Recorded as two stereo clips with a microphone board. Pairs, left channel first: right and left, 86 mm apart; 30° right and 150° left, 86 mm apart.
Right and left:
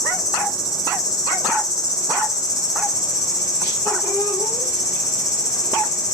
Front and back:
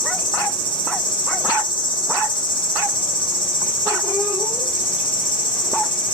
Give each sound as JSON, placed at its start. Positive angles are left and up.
{"t": 0.0, "sound": "an insect", "azimuth_deg": -45, "distance_m": 3.5}